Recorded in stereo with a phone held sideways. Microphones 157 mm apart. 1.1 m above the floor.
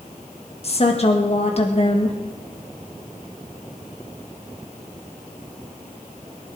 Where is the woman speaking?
45° left (ahead or behind), 1.6 m.